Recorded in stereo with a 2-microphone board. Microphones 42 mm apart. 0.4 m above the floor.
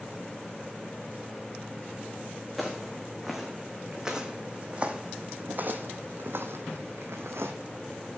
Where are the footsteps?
Centre (ahead or behind), 2 m; by 7.5 s 75° right (ahead or behind), 1.5 m.